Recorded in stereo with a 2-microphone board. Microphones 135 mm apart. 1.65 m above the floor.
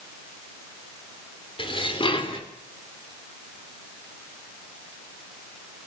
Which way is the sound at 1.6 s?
40° left (ahead or behind).